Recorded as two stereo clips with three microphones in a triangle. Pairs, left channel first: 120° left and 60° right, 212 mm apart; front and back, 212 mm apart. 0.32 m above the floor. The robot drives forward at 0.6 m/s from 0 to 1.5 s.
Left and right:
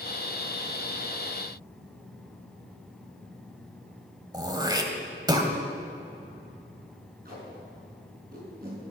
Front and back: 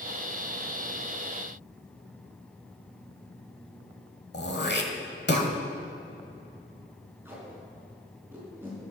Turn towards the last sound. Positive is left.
turn(degrees=-100)